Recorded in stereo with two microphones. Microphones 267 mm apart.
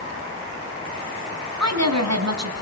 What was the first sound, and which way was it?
A woman speaking, 70° right (ahead or behind).